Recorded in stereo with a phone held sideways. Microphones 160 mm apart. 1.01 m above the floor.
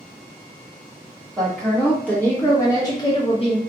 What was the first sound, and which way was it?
A woman speaking, 5° left (ahead or behind).